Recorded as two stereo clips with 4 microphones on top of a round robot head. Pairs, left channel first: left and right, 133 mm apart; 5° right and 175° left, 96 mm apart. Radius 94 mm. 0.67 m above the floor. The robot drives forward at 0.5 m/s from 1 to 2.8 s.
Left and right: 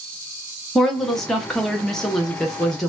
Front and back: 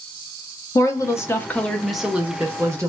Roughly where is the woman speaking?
Ahead.